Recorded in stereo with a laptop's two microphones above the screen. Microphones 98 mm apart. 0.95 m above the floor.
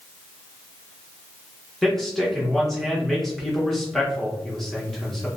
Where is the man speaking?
5° left (ahead or behind), 1.0 m.